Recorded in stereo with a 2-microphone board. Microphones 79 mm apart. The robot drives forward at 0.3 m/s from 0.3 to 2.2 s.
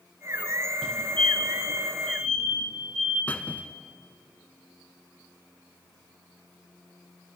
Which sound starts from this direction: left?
A squeak, at 3.3 s.